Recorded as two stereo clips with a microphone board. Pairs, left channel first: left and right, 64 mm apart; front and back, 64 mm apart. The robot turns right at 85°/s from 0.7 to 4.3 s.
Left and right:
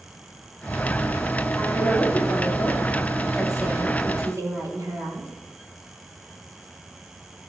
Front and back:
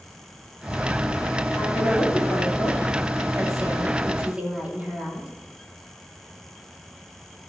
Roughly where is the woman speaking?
Ahead.